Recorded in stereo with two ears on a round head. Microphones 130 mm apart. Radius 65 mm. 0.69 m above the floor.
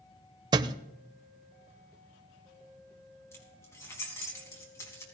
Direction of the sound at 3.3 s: 20° left (ahead or behind).